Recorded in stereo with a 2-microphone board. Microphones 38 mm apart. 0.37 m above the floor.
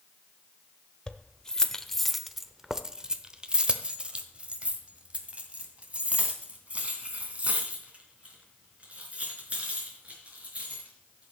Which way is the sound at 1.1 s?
20° left (ahead or behind).